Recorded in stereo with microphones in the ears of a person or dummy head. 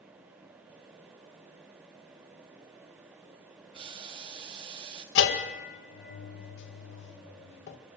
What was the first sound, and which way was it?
Boiling, 30° right (ahead or behind).